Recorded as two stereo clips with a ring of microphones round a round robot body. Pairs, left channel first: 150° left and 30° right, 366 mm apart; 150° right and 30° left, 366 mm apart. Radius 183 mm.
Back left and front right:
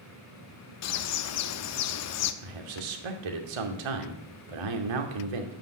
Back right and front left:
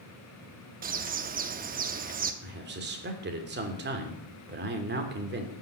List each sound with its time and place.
0.8 s a bird: 100° left, 0.7 m
2.4 s a man speaking: 35° right, 2.5 m